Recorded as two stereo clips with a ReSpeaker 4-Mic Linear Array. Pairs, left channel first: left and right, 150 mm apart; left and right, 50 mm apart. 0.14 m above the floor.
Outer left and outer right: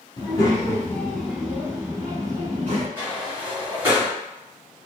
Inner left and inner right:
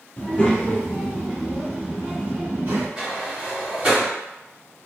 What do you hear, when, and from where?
0.2 s a child speaking: 30° left (ahead or behind), 1.1 m; by 2.9 s 40° right (ahead or behind), 1.2 m
3.0 s a sliding door: 15° right (ahead or behind), 2.0 m